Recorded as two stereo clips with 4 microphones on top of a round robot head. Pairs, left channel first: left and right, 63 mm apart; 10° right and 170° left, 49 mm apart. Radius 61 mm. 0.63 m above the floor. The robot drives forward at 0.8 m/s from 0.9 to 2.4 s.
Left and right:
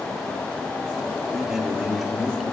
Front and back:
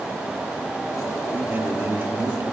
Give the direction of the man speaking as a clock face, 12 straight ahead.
6 o'clock.